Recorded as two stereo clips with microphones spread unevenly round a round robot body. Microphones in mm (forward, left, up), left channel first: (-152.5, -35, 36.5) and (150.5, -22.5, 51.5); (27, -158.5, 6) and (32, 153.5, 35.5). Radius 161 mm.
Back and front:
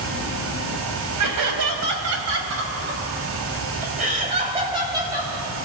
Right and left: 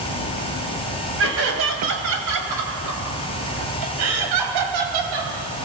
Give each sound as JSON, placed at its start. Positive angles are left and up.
{"t": 1.2, "sound": "laughter", "azimuth_deg": 40, "distance_m": 4.0}